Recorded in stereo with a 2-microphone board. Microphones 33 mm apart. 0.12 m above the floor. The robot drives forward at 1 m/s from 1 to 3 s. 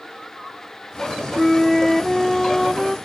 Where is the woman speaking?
No woman speaking in this recording.